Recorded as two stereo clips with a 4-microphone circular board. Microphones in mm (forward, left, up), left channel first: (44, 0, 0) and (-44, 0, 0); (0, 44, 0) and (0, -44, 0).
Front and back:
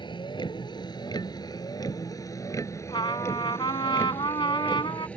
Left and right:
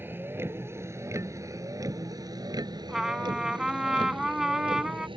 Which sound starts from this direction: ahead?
A trumpet, at 2.9 s.